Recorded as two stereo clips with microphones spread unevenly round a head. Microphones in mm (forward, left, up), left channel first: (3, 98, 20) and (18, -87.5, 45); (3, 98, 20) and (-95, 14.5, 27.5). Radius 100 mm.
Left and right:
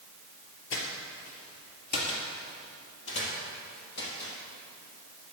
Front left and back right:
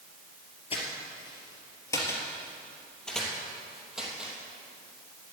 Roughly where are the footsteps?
Left.